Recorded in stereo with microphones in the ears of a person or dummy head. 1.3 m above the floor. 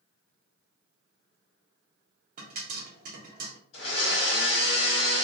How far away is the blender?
About 1.3 m.